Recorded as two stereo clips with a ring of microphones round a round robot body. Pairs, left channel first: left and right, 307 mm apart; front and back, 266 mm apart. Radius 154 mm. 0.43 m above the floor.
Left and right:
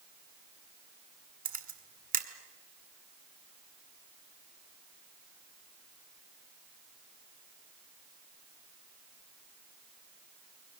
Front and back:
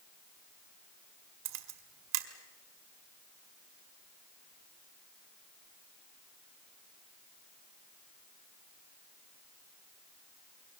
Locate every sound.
1.4 s a camera shutter: 155° right, 1.9 m